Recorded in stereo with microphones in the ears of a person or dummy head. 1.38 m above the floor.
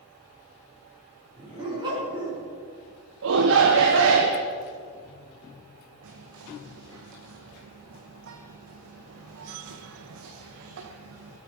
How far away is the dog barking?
About 4.5 m.